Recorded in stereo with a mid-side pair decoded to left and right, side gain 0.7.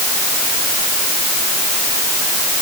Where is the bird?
No bird in this recording.